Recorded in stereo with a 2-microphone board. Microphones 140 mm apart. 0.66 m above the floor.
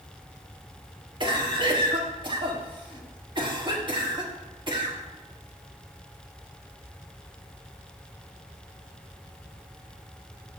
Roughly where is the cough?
Right.